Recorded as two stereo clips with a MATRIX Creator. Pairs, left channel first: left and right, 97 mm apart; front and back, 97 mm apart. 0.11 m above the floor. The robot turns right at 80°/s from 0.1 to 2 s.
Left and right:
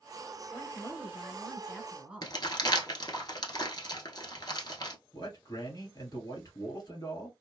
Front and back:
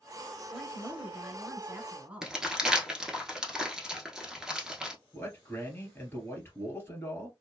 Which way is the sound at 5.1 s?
60° left.